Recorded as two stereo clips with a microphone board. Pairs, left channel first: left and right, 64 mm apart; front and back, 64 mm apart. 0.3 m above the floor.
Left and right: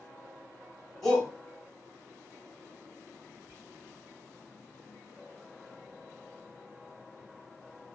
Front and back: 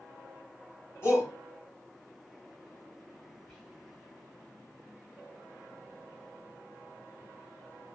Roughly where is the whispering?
Right.